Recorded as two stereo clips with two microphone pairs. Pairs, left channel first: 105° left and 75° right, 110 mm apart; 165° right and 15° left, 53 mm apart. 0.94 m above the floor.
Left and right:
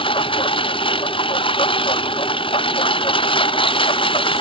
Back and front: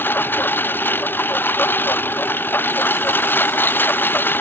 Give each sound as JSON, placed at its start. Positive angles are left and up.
{"t": 0.0, "sound": "a lawn mower", "azimuth_deg": 145}